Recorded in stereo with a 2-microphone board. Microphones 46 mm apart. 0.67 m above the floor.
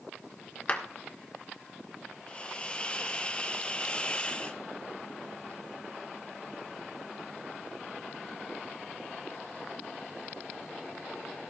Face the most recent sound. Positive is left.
turn(degrees=25)  # may be behind; listen again after turning